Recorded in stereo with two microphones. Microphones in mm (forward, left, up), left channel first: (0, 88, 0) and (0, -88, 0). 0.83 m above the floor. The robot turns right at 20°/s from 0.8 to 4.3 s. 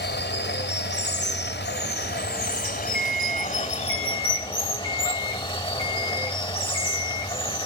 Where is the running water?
80° left, 1.6 m; by 7.7 s 150° left, 1.6 m.